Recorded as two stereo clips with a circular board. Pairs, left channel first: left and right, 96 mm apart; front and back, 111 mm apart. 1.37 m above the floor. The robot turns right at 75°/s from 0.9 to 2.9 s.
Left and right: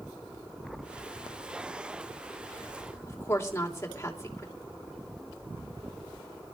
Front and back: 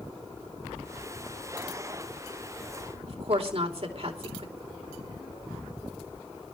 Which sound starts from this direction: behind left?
A woman speaking, at 3.1 s.